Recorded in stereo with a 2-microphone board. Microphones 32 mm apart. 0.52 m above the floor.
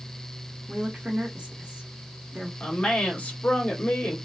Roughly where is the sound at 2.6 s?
Left.